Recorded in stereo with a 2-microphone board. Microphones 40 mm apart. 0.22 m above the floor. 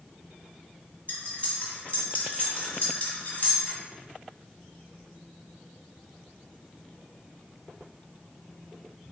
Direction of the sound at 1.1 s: 40° left (ahead or behind).